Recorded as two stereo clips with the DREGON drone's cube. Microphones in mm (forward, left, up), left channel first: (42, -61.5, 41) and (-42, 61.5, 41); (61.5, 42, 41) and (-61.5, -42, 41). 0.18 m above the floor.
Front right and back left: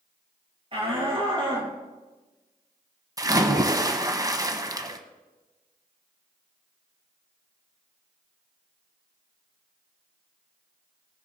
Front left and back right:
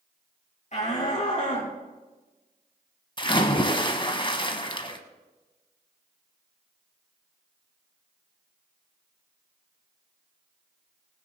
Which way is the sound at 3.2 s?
70° left.